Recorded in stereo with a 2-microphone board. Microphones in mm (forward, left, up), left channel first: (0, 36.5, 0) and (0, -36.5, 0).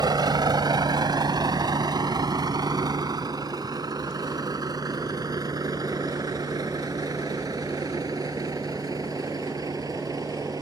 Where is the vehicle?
80° right; by 10.6 s 60° right (ahead or behind).